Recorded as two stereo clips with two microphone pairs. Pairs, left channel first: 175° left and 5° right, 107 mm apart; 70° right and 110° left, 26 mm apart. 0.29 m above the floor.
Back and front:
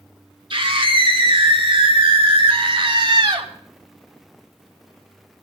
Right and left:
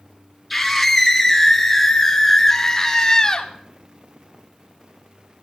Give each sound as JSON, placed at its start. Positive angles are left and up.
{"t": 0.5, "sound": "a scream", "azimuth_deg": 25, "distance_m": 4.5}